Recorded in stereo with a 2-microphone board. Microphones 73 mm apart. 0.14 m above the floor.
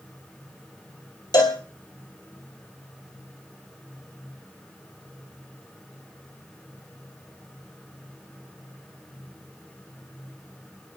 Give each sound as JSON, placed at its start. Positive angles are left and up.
{"t": 1.3, "sound": "a cowbell", "side_deg": 60, "distance_m": 3.0}